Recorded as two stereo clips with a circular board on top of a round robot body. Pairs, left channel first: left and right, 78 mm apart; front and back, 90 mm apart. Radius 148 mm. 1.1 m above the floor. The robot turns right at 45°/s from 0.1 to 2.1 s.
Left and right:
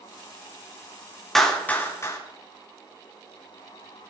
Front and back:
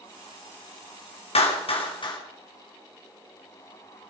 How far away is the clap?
About 3.5 m.